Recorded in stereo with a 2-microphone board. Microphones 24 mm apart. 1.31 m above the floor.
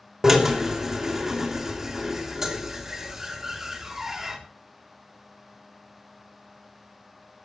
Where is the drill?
25° right (ahead or behind), 3.5 m.